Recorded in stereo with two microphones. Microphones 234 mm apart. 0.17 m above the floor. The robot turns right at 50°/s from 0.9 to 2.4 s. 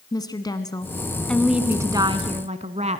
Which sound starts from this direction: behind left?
A woman speaking, at 0.1 s.